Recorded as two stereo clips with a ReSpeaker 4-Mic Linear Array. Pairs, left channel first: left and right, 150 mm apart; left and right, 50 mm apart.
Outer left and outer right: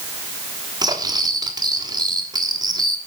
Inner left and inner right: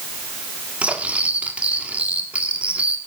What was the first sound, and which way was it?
Cutlery clinking, 25° right (ahead or behind).